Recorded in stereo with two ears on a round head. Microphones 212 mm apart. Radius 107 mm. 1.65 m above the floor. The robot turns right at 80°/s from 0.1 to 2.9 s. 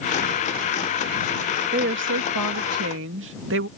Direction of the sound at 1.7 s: 145° right.